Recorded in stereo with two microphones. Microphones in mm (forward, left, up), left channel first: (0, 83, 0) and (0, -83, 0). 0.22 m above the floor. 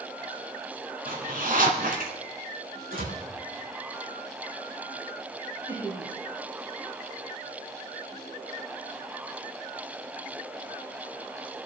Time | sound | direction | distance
1.1 | a zipper | 60° right (ahead or behind) | 3 m
2.9 | a door slam | 65° right (ahead or behind) | 6.5 m
5.7 | laughter | 20° right (ahead or behind) | 6 m